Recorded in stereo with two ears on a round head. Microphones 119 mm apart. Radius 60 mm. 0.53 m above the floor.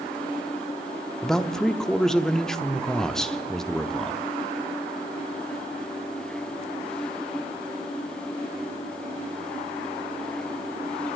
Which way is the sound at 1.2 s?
5° left (ahead or behind).